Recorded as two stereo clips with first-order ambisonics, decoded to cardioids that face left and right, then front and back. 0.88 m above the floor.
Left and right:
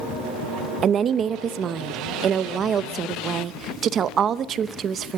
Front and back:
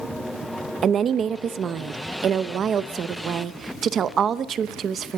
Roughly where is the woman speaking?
Behind right.